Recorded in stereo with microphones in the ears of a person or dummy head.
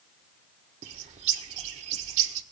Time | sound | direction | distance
0.8 | a bird | 40° right (ahead or behind) | 0.7 m